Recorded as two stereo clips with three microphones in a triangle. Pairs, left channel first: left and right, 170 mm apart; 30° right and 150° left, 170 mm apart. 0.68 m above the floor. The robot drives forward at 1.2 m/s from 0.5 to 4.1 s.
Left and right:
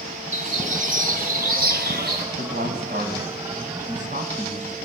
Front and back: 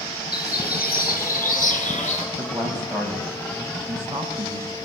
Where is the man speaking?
115° right, 4 m; by 4.8 s 135° right, 5.5 m.